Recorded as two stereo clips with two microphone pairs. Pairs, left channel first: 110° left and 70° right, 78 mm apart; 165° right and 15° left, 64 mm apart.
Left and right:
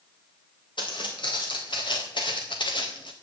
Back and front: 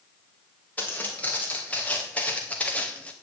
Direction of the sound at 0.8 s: 130° left.